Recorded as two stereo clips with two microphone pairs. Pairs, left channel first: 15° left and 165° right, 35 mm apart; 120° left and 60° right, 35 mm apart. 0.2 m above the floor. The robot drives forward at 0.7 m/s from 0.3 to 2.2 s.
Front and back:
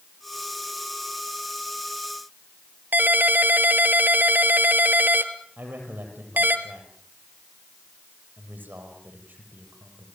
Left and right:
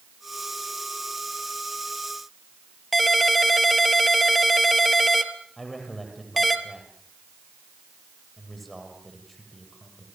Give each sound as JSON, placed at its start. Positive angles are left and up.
{"t": 2.9, "sound": "a ringtone", "azimuth_deg": -150, "distance_m": 1.7}
{"t": 5.6, "sound": "a man speaking", "azimuth_deg": -150, "distance_m": 7.0}